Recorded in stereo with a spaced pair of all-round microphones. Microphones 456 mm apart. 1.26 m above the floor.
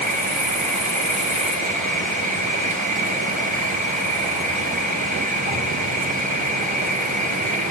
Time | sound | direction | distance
0.0 | an insect | 15° right (ahead or behind) | 0.9 m